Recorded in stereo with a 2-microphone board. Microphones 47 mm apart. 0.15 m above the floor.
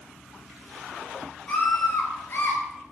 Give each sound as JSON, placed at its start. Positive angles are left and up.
{"t": 1.5, "sound": "a scream", "side_deg": 20, "distance_m": 3.0}